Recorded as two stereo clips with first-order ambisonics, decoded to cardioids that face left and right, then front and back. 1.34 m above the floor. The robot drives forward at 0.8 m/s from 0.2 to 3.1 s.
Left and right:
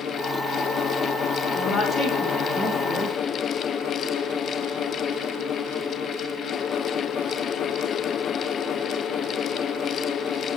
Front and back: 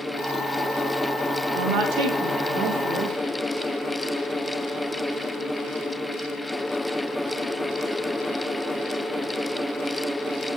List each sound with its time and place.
1.6 s a woman speaking: 160° left, 1.7 m; by 3.1 s 170° left, 3 m